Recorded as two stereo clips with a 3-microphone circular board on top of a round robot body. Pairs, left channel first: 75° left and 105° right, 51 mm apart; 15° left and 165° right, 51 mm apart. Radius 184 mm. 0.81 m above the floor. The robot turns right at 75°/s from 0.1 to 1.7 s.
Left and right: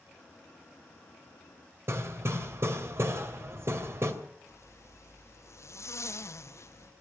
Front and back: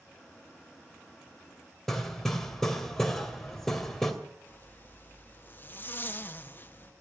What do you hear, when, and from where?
1.9 s hammering: 70° right, 2.5 m
4.5 s a zipper: 65° left, 1.8 m